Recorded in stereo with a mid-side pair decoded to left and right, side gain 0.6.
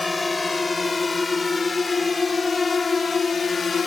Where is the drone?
20° left; by 3.9 s 35° left.